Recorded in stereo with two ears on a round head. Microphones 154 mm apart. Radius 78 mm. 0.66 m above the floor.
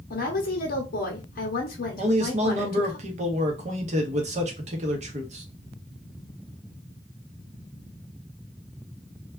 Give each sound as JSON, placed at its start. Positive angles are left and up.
{"t": 0.1, "sound": "a woman speaking", "side_deg": 55, "distance_m": 0.8}
{"t": 2.0, "sound": "a man speaking", "side_deg": -40, "distance_m": 0.8}